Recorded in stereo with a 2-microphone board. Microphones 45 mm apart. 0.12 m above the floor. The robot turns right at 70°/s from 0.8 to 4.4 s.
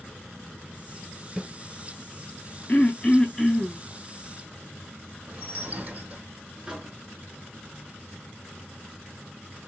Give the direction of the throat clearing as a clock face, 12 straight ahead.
8 o'clock.